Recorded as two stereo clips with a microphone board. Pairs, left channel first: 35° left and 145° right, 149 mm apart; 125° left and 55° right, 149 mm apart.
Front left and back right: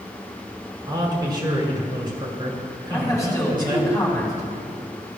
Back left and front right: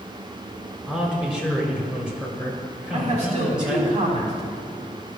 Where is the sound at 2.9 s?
35° right, 2.5 m.